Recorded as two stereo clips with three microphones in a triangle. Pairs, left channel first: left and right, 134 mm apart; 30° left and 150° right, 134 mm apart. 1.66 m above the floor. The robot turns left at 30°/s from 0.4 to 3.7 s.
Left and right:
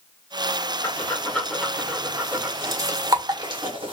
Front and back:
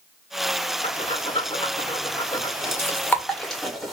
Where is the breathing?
20° left, 1.7 m; by 3.9 s 65° right, 1.7 m.